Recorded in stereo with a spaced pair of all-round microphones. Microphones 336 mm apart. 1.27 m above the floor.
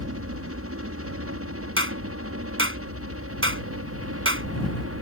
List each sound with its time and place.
0.0 s a helicopter: 45° right (ahead or behind)
1.8 s a clap: 40° right (ahead or behind)